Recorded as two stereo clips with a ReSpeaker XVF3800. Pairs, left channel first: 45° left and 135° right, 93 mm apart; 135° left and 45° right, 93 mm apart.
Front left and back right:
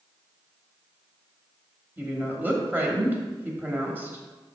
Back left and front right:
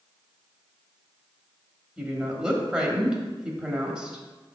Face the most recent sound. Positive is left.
turn(degrees=-110)